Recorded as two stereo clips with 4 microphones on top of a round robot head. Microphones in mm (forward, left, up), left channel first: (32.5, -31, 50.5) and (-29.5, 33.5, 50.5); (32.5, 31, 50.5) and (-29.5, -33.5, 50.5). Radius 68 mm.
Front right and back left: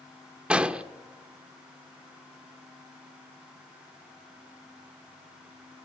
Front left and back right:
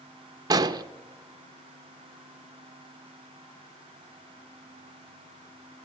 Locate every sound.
0.5 s an explosion: 155° right, 0.9 m